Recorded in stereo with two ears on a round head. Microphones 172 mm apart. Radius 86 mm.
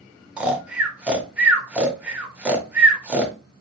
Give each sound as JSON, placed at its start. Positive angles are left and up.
{"t": 0.4, "sound": "snoring", "side_deg": -5, "distance_m": 0.7}